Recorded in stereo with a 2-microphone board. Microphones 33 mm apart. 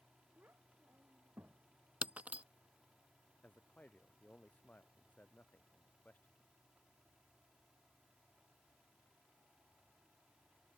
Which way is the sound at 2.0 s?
50° right (ahead or behind).